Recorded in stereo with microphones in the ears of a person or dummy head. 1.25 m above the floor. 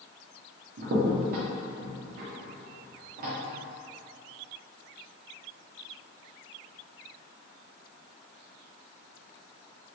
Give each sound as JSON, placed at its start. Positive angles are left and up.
{"t": 0.8, "sound": "a crack", "side_deg": -50, "distance_m": 0.6}